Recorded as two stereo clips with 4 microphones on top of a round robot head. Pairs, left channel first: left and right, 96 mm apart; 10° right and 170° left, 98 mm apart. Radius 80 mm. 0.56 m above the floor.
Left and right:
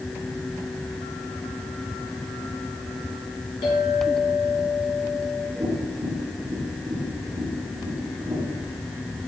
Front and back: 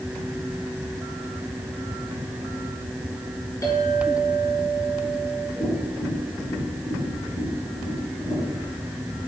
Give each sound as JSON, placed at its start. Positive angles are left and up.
{"t": 3.6, "sound": "a clink", "azimuth_deg": 50, "distance_m": 5.0}
{"t": 5.6, "sound": "tapping", "azimuth_deg": -40, "distance_m": 4.5}